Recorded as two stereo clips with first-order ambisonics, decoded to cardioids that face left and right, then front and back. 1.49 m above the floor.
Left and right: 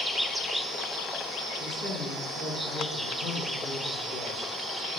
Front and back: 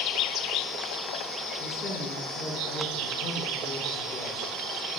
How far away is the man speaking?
About 3.5 m.